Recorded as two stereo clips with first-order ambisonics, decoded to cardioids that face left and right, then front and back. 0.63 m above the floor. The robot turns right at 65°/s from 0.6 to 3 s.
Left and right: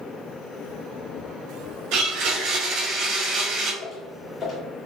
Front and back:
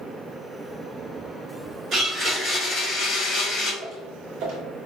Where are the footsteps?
155° left, 1.6 m.